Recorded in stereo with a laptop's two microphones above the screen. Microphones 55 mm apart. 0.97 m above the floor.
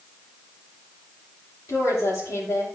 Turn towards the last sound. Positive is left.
turn(degrees=75)  # may be behind; listen again after turning